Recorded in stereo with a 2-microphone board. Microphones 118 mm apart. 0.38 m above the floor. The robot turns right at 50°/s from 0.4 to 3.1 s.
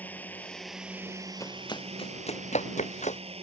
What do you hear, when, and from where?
0.0 s a drone: 165° left; by 3.4 s 60° right
1.4 s running footsteps: 25° left (ahead or behind); by 3.2 s 80° left